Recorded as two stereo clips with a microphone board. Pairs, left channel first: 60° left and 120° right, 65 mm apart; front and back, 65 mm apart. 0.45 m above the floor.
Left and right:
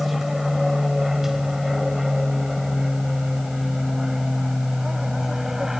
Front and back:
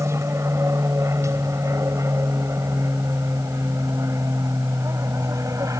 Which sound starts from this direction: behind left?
An aircraft, at 0.0 s.